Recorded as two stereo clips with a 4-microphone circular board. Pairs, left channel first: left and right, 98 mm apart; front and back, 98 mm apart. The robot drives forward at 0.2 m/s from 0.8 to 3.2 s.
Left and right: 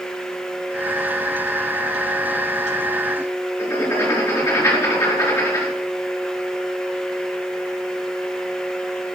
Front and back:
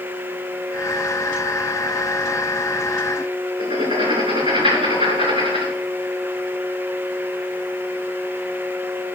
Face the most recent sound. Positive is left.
turn(degrees=155)